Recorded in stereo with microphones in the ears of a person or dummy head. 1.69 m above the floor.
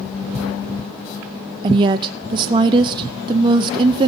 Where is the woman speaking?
25° right (ahead or behind), 0.5 m.